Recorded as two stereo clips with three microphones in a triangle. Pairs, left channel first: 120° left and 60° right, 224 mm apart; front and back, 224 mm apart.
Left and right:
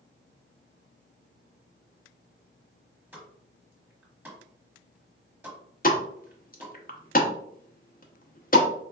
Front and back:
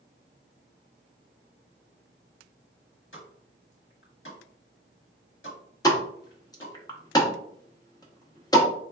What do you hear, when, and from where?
3.1 s a pop: 20° left, 1.1 m
5.8 s a pop: 70° left, 0.6 m